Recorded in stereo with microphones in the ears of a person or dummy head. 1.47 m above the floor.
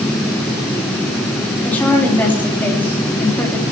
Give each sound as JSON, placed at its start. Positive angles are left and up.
{"t": 1.6, "sound": "a woman speaking", "side_deg": 10, "distance_m": 4.0}